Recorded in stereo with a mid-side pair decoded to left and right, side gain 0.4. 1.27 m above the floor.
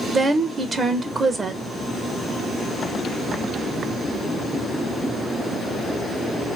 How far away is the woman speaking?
About 1.0 m.